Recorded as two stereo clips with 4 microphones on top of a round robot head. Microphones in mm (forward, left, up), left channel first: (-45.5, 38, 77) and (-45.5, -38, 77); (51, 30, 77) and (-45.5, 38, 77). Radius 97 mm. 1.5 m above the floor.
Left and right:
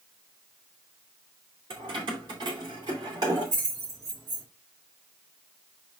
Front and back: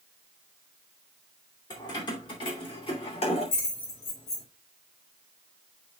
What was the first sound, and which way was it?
Keys jangling, 60° right.